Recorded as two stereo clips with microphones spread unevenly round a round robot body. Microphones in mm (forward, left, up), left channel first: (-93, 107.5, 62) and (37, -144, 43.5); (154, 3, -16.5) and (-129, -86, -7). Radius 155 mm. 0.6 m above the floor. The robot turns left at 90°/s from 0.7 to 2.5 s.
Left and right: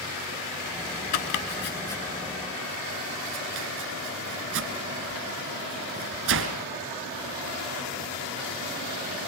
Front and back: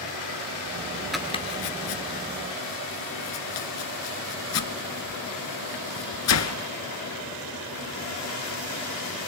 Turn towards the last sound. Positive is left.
turn(degrees=-15)